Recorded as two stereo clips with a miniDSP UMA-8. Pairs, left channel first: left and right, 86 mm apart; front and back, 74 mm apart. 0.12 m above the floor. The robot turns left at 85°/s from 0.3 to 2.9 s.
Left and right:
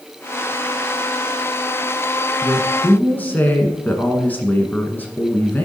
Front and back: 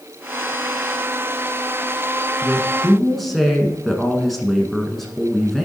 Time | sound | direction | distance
2.4 | a woman speaking | 130° left | 1.1 m